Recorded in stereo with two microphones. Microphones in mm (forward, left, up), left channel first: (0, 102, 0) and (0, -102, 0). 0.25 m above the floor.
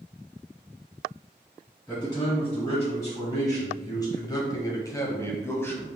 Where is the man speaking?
15° left (ahead or behind), 1.8 m; by 6.0 s 10° left (ahead or behind), 1.3 m.